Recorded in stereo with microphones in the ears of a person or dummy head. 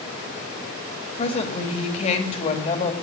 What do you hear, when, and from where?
1.2 s a woman speaking: 40° left (ahead or behind), 2.5 m